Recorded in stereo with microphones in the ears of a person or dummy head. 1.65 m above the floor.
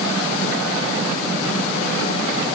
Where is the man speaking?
I don't hear a man speaking.